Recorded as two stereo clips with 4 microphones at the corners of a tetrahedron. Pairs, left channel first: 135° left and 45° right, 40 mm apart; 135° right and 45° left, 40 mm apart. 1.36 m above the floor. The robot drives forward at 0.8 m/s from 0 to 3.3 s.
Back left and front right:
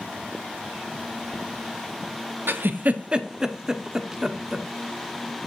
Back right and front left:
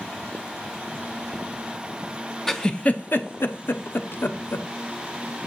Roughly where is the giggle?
Ahead right.